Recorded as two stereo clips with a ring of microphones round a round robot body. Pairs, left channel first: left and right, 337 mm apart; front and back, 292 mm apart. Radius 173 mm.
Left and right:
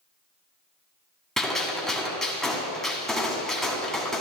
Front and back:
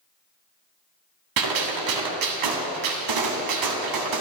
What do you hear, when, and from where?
1.4 s a gunshot: straight behind, 1.6 m